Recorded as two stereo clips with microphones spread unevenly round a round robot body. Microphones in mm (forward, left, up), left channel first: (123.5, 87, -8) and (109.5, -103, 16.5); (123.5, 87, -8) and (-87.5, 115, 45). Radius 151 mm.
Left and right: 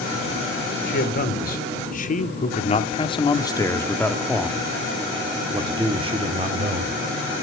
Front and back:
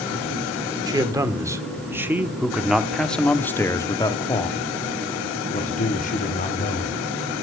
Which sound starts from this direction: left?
A man speaking, at 0.9 s.